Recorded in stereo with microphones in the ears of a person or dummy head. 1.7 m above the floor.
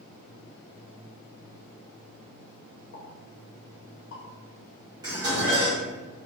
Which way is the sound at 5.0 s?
25° right (ahead or behind).